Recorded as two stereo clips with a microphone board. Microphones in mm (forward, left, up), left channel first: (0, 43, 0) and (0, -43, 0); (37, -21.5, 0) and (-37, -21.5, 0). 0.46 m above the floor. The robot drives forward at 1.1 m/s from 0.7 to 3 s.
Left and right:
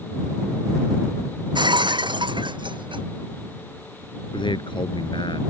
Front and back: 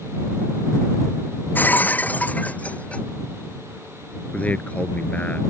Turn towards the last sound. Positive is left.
turn(degrees=70)